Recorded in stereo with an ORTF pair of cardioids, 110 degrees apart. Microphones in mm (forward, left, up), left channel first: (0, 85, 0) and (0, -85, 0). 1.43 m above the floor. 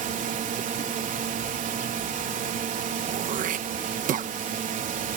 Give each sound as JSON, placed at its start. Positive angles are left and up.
{"t": 0.0, "sound": "a drone", "azimuth_deg": -50}
{"t": 3.0, "sound": "throat clearing", "azimuth_deg": -50}